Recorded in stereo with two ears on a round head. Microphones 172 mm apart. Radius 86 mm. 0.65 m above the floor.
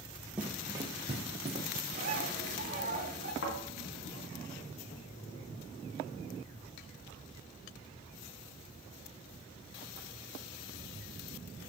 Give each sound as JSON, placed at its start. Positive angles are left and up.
{"t": 0.4, "sound": "running footsteps", "side_deg": -5, "distance_m": 0.7}
{"t": 1.9, "sound": "a bird", "side_deg": -45, "distance_m": 1.0}
{"t": 3.4, "sound": "a thud", "side_deg": 70, "distance_m": 2.5}